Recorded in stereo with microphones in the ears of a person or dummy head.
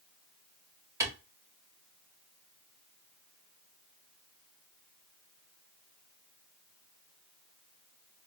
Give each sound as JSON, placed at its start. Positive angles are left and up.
{"t": 1.0, "sound": "a clap", "side_deg": -20, "distance_m": 1.9}